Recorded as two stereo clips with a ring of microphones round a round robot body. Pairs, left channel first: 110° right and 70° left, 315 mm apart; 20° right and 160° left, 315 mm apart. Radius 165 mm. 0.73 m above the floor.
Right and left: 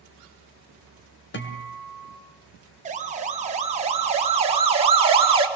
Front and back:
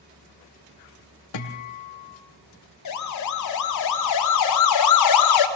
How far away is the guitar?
About 2.5 m.